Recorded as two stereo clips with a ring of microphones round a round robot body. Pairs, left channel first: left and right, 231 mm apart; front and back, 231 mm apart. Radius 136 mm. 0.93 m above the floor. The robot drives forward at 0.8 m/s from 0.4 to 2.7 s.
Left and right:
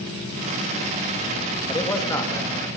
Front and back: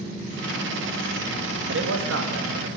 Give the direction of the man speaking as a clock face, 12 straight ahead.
7 o'clock.